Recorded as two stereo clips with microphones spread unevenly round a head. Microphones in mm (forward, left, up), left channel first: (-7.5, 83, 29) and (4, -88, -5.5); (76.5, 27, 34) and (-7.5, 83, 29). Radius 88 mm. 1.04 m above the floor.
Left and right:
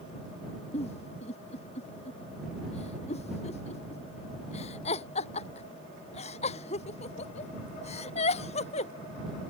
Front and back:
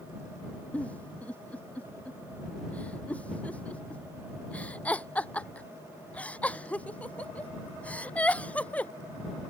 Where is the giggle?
40° left.